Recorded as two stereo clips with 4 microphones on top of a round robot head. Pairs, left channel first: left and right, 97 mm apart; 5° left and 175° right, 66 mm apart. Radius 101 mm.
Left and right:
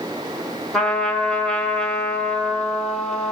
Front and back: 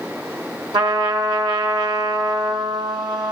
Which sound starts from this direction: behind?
A trumpet, at 0.7 s.